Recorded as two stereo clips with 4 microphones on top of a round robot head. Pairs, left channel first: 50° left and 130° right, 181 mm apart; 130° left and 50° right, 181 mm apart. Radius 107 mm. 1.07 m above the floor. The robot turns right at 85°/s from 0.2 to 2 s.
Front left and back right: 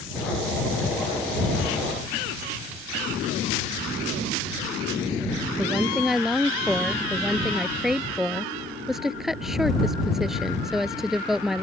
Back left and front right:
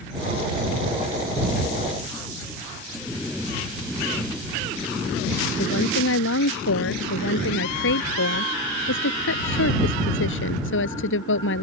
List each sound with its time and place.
5.6 s a woman speaking: 140° left